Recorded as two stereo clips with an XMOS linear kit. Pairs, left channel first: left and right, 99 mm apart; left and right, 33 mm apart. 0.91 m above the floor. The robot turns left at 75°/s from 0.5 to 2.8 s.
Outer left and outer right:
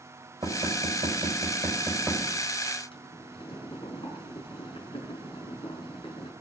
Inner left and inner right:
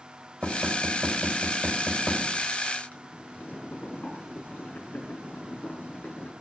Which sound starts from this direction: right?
Knocking, at 0.4 s.